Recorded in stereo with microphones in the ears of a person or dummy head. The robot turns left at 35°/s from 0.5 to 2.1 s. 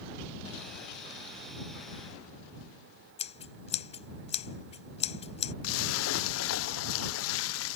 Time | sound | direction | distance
3.2 | scissors | 30° left (ahead or behind) | ?
5.6 | a splash | 85° left | ?